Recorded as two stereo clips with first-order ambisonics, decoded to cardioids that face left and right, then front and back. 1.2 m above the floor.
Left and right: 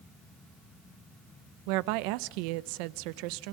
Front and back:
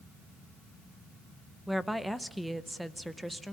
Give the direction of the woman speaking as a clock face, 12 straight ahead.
3 o'clock.